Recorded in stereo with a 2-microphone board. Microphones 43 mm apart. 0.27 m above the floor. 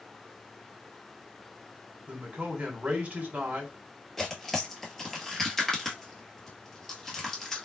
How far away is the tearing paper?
About 1.3 m.